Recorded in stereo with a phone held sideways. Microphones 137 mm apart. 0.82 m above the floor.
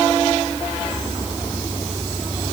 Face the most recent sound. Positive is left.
No sound to turn to.